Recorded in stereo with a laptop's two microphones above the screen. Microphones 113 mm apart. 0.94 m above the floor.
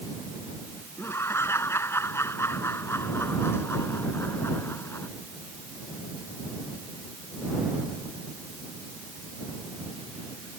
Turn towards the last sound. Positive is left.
turn(degrees=20)  # may be behind; listen again after turning